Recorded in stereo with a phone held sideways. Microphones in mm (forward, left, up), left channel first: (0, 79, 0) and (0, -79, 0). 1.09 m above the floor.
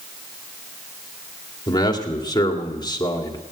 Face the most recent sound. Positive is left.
turn(degrees=25)  # may be behind; listen again after turning